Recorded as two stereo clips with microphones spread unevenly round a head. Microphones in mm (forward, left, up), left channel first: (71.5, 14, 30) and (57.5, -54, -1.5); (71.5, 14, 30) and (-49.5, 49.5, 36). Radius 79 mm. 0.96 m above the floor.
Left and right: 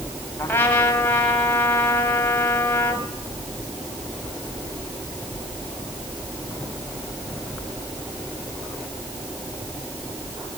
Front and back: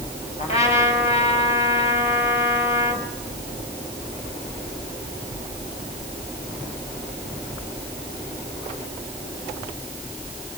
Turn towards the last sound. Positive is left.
turn(degrees=20)